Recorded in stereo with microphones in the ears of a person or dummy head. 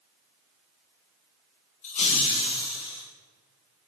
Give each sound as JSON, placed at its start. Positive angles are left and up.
{"t": 1.8, "sound": "laughter", "side_deg": 40, "distance_m": 1.6}